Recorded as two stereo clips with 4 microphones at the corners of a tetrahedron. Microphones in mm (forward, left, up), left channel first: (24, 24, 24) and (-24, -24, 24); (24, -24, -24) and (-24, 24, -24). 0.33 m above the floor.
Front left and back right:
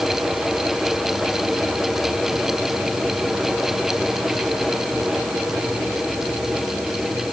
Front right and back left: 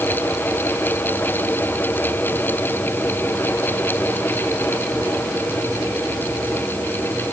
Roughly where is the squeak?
I don't hear a squeak.